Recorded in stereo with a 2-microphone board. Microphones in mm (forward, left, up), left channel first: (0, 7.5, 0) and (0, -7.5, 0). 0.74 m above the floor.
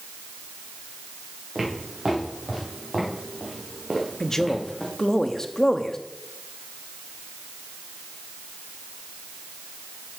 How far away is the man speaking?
About 0.9 m.